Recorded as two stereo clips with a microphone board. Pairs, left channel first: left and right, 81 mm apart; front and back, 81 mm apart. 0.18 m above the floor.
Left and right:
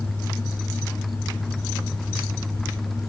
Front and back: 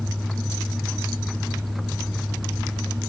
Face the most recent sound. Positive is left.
No sound to turn to.